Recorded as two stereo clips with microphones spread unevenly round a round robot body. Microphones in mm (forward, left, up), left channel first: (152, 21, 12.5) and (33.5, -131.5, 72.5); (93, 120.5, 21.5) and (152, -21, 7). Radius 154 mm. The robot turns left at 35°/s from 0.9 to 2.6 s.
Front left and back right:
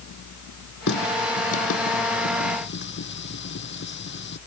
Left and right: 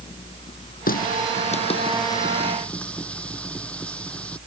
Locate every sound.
0.9 s a running tap: 90° left; by 4.4 s 30° left